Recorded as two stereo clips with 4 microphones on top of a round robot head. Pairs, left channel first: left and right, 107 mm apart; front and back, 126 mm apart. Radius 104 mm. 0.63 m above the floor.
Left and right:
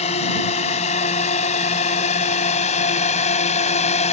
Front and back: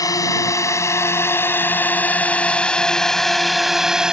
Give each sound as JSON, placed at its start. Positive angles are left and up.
{"t": 0.0, "sound": "a drone", "azimuth_deg": 60}